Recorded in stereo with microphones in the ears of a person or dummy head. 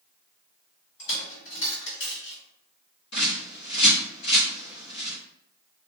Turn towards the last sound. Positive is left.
turn(degrees=70)  # may be behind; listen again after turning